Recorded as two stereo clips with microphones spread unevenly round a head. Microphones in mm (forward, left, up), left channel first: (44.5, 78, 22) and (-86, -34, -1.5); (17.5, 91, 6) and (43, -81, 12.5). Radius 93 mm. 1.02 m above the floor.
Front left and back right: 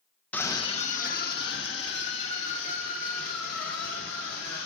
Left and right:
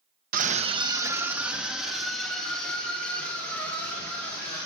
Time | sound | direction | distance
0.3 | a scream | 45° right | 0.9 m